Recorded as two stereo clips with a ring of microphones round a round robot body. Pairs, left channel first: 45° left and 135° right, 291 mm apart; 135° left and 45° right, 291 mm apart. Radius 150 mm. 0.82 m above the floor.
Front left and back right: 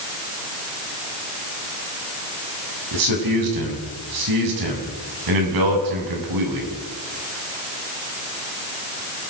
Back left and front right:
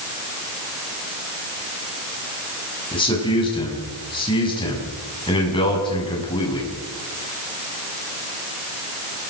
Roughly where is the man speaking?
Behind right.